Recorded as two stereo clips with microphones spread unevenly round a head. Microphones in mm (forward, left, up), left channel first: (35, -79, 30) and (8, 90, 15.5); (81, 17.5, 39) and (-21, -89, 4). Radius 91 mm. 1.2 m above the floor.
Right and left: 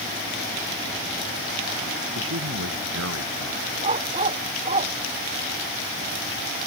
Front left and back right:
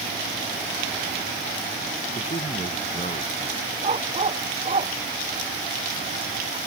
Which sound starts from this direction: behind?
A dog barking, at 3.8 s.